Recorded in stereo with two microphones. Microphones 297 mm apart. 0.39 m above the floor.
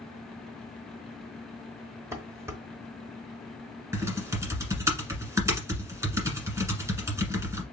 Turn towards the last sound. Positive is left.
turn(degrees=-10)  # may be behind; listen again after turning